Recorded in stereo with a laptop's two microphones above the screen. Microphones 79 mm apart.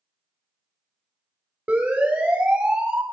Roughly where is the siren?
Centre.